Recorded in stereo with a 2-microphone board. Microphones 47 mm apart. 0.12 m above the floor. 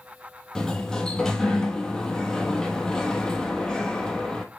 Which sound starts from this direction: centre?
A sliding door, at 0.6 s.